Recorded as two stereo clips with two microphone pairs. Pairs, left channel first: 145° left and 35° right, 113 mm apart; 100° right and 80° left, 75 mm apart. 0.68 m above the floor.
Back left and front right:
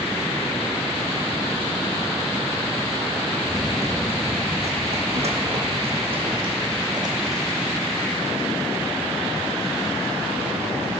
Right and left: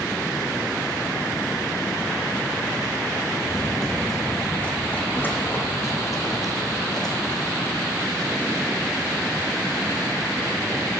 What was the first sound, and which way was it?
Running footsteps, 10° right.